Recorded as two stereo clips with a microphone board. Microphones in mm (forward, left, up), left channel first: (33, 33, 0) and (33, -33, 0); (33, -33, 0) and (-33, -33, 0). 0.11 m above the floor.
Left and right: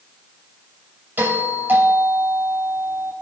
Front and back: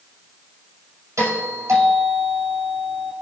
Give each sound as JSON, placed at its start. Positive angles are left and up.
{"t": 1.2, "sound": "a doorbell", "azimuth_deg": -145, "distance_m": 6.5}